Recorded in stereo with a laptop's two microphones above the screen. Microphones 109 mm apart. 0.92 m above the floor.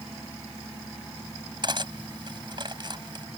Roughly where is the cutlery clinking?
Right.